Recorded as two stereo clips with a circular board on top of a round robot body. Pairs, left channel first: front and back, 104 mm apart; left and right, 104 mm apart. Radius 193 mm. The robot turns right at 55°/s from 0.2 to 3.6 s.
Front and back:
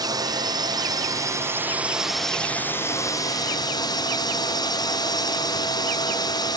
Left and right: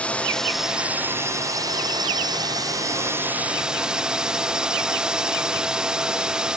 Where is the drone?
160° left; by 6.6 s 10° right.